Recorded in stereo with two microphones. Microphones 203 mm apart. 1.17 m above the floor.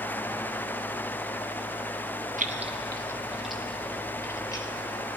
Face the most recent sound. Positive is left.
turn(degrees=20)  # may be behind; listen again after turning